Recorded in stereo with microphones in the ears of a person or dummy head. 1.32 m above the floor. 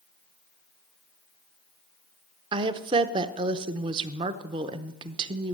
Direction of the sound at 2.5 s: 20° right (ahead or behind).